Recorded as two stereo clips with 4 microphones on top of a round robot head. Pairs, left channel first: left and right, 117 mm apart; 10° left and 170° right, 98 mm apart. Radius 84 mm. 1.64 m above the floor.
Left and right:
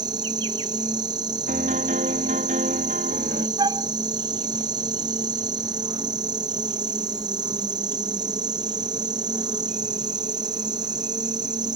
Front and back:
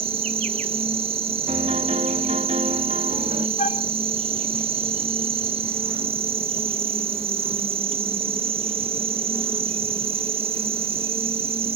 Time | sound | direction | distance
0.0 | an insect | 150° right | ?
1.5 | a piano | 130° right | ?
3.6 | a flute | 35° right | ?